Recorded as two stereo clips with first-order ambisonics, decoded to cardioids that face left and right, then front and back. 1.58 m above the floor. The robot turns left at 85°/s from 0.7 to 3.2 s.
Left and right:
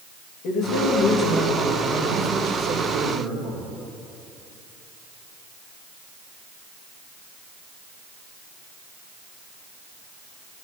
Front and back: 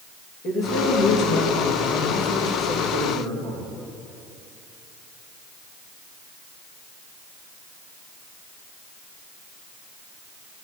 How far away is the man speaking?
About 2.5 m.